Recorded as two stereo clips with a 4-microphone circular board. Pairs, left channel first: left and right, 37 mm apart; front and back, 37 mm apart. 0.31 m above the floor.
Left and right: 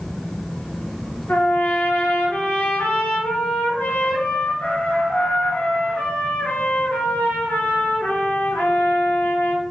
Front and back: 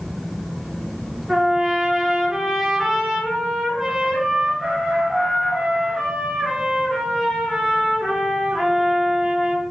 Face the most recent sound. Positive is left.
turn(degrees=95)